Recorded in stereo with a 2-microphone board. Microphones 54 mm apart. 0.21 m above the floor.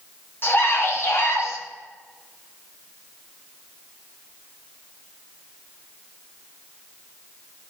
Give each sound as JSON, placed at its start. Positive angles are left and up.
{"t": 0.4, "sound": "a scream", "side_deg": 45, "distance_m": 2.0}